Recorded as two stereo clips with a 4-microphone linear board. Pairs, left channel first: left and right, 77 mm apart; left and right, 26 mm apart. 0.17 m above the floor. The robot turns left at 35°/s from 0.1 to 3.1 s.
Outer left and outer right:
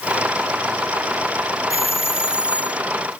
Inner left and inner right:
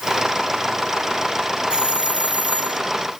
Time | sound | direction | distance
1.7 | a doorbell | 40° right | ?